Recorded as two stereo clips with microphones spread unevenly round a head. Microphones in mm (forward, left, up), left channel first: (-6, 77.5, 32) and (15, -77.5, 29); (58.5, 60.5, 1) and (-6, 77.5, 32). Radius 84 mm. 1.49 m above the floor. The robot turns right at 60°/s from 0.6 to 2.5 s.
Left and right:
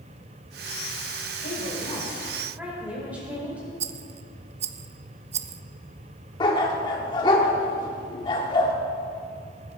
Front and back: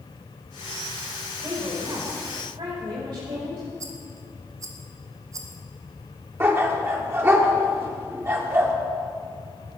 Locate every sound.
1.4 s a woman speaking: 130° left, 5 m; by 3.7 s 165° right, 5 m
3.8 s a rattle: 125° right, 0.5 m
6.4 s a dog barking: 155° left, 1.5 m